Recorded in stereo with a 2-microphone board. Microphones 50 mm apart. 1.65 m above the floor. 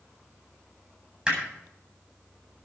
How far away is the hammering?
About 8 m.